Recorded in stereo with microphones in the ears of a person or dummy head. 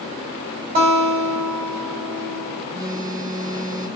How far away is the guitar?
About 2.5 m.